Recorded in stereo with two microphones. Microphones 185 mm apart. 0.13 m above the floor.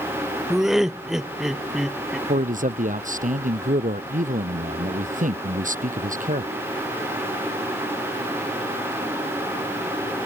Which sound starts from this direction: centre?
Laughter, at 0.5 s.